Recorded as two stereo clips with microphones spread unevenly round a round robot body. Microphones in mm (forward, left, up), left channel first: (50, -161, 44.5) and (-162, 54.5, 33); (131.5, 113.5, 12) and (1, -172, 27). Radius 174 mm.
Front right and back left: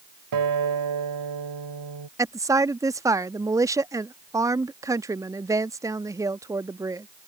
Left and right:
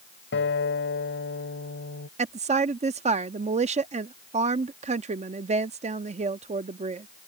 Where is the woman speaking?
165° right.